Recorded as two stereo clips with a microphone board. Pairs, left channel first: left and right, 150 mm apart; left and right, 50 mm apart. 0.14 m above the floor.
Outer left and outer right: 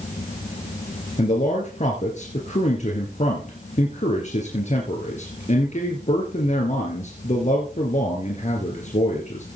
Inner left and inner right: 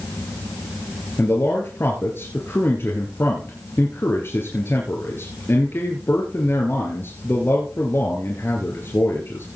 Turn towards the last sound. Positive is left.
turn(degrees=55)  # may be behind; listen again after turning